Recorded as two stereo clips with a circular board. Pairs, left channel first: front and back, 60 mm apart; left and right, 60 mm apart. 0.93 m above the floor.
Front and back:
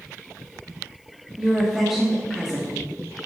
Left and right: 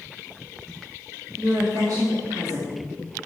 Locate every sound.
1.4 s a woman speaking: 95° right, 2 m